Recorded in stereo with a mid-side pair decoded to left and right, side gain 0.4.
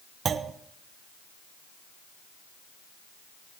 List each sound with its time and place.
0.2 s a clunk: 55° right, 1.0 m